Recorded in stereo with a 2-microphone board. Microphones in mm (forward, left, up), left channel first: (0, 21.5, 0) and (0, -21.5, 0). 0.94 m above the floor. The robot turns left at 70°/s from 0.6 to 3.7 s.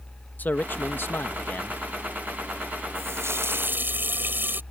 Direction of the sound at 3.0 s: 75° right.